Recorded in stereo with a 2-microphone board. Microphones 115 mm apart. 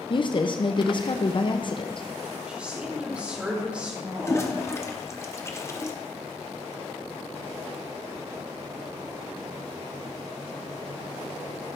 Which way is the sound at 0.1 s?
40° left (ahead or behind).